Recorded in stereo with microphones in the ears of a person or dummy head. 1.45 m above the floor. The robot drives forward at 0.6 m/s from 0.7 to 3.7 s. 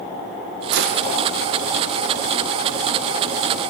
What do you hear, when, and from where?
0.7 s a gunshot: 60° right (ahead or behind), 0.6 m; by 1.1 s 50° right (ahead or behind), 0.7 m